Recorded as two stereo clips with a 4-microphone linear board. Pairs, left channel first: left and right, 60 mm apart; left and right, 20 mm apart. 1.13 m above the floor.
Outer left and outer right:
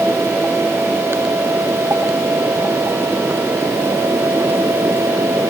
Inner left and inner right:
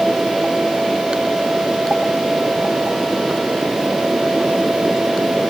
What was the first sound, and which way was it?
Only background noise.